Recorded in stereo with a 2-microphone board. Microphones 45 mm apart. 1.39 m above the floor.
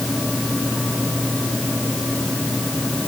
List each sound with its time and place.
Only background noise.